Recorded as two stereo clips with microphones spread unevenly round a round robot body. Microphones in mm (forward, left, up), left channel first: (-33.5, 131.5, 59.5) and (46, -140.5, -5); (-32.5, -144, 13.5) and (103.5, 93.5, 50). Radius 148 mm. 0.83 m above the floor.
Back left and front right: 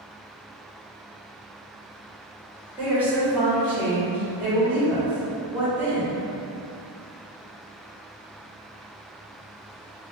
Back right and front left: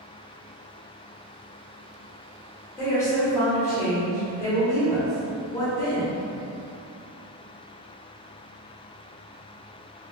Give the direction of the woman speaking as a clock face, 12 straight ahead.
3 o'clock.